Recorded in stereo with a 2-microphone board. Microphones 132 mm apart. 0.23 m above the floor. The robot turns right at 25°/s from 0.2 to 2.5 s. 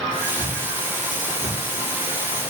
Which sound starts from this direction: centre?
A thud, at 0.4 s.